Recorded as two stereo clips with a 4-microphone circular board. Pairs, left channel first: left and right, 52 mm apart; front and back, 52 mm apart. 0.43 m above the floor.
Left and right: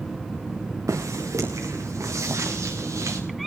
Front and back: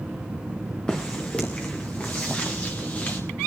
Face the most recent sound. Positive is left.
turn(degrees=-65)